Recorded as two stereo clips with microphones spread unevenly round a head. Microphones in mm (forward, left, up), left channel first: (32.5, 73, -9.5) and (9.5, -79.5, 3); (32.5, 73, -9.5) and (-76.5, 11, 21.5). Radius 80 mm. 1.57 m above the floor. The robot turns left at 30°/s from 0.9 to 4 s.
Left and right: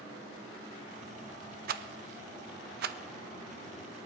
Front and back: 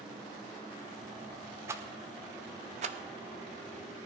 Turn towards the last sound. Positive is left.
turn(degrees=-150)